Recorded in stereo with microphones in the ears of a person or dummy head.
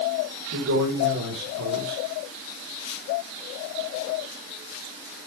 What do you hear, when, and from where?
0.5 s a man speaking: 85° right, 5 m